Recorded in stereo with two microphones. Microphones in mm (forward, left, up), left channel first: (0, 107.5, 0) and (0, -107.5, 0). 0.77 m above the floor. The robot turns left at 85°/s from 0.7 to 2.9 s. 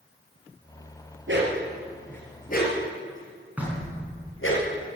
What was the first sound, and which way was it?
A dog barking, 65° right (ahead or behind).